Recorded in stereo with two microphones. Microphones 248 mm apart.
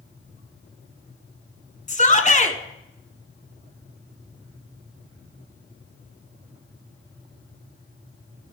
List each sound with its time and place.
1.9 s a shout: 30° left (ahead or behind), 1.2 m